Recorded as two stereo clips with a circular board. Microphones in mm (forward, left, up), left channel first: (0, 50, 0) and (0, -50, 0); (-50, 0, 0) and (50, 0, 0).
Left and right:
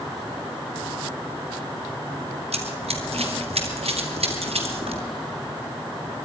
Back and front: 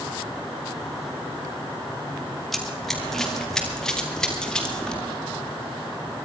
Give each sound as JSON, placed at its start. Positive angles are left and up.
{"t": 2.5, "sound": "running footsteps", "azimuth_deg": -90, "distance_m": 2.5}